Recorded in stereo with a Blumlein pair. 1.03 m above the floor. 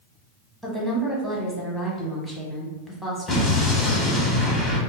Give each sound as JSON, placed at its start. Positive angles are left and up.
{"t": 0.6, "sound": "a woman speaking", "azimuth_deg": 0, "distance_m": 1.0}
{"t": 3.3, "sound": "an explosion", "azimuth_deg": 20, "distance_m": 1.0}